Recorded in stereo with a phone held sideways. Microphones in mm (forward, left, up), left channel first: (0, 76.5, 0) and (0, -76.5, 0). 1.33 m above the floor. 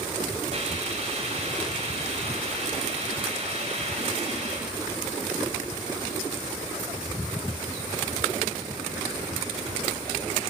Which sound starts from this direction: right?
A hiss, at 0.5 s.